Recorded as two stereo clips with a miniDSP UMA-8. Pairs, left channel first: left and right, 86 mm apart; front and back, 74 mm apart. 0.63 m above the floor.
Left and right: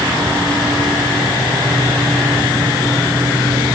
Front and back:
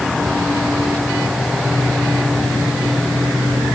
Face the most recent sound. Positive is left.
No sound to turn to.